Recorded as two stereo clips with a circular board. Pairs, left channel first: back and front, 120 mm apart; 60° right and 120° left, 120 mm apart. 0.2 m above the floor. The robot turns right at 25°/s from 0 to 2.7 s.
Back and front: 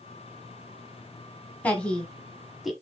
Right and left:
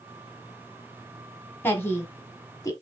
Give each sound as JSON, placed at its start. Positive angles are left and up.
{"t": 1.6, "sound": "a woman speaking", "azimuth_deg": -115, "distance_m": 1.3}